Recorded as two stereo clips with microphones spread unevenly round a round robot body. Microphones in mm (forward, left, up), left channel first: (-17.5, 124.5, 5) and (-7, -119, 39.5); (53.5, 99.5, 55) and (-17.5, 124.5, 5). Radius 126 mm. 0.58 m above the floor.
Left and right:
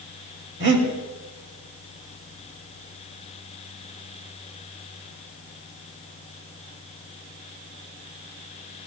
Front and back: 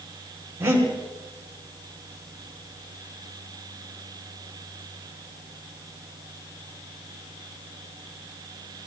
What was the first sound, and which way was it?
Breathing, 135° right.